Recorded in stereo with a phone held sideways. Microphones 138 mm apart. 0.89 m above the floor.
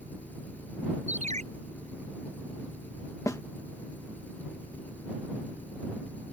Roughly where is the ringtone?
Right.